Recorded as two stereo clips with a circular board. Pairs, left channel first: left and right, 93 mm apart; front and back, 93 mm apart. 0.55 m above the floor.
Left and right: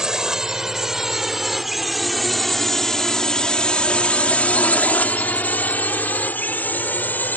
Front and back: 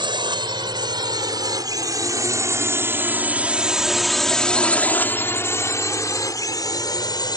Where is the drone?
170° right; by 7.4 s 25° left.